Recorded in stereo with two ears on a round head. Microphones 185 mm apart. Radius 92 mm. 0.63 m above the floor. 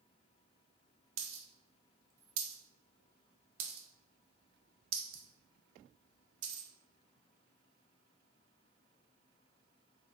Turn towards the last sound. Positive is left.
turn(degrees=-75)  # may be behind; listen again after turning